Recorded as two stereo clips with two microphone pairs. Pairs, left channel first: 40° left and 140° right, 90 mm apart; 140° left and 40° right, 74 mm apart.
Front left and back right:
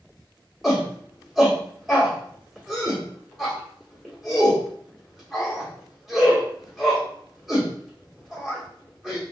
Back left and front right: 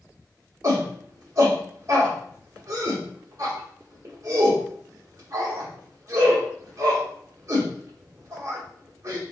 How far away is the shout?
About 0.9 m.